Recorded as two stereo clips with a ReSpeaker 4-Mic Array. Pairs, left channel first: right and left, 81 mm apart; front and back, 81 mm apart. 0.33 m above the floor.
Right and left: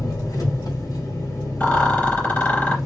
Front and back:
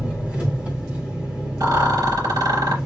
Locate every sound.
0.0 s an engine running: 110° right, 2.5 m
1.6 s a rattle: 160° right, 3 m